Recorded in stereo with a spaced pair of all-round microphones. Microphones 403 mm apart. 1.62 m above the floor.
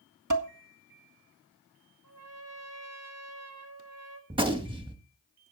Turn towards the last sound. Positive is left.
turn(degrees=-10)  # may be behind; listen again after turning